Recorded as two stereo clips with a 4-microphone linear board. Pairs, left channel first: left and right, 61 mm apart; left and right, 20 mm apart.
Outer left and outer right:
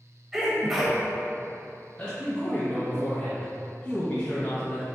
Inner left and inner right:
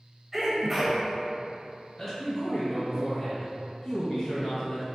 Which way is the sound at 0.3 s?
5° right (ahead or behind).